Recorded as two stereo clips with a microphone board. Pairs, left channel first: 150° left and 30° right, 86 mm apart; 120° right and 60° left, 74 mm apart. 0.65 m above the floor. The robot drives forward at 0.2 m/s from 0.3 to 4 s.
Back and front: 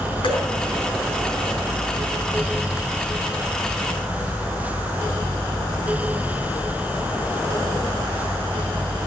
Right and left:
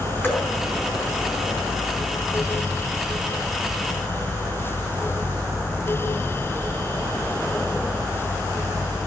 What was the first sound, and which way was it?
Dripping, straight behind.